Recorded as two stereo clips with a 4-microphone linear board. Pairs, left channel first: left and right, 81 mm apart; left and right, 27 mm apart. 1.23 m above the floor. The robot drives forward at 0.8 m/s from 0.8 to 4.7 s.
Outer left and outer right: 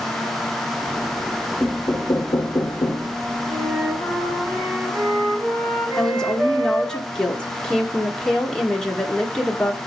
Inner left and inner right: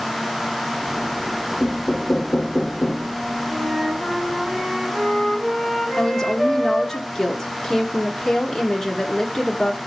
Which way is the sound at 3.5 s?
35° right (ahead or behind).